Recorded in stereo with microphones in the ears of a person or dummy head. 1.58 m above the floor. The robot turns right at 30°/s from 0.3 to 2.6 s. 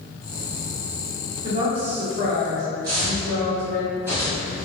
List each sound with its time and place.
1.4 s a woman speaking: 160° right, 1.0 m; by 3.8 s 130° right, 1.0 m
2.8 s footsteps: 20° right (ahead or behind), 1.7 m; by 4.7 s 5° right (ahead or behind), 1.9 m